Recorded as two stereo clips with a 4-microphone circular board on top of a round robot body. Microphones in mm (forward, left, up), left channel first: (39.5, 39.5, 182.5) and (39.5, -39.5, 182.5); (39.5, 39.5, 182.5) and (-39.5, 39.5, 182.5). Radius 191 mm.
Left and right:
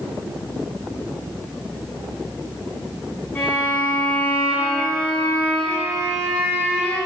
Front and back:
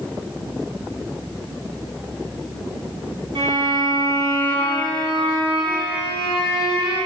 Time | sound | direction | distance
3.4 | a violin | 165° left | 1.8 m